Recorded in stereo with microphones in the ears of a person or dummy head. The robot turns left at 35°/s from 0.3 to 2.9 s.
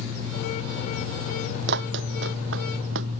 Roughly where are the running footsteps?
Right.